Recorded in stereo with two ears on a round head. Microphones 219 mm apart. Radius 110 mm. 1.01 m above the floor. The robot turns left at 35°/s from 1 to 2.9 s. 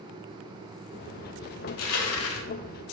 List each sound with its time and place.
1.7 s crushing: 70° left (ahead or behind), 0.6 m; by 2.5 s 55° left (ahead or behind), 0.6 m